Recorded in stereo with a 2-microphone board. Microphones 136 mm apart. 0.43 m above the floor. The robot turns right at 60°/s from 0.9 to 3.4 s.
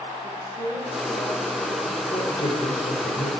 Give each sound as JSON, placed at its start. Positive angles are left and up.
{"t": 0.2, "sound": "a woman speaking", "azimuth_deg": -85, "distance_m": 7.0}
{"t": 2.1, "sound": "a woman speaking", "azimuth_deg": 30, "distance_m": 7.5}